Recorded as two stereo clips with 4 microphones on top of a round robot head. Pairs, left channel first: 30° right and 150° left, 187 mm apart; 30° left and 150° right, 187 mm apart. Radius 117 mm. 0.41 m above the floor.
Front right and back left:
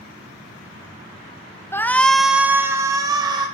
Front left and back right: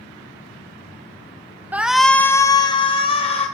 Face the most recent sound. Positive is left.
turn(degrees=85)